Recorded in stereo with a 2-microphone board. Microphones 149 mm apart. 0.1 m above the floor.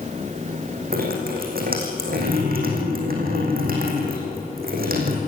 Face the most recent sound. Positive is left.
turn(degrees=-75)  # may be behind; listen again after turning